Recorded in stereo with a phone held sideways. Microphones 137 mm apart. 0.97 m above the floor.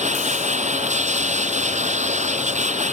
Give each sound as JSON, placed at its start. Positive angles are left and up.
{"t": 0.0, "sound": "a machine running", "side_deg": -60}